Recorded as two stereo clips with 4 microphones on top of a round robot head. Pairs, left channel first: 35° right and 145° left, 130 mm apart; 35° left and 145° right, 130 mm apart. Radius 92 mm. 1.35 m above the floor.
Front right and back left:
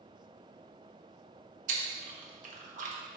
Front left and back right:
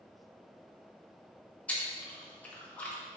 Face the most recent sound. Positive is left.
turn(degrees=115)